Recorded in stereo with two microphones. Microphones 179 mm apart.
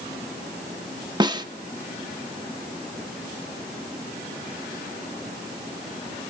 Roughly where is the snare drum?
Right.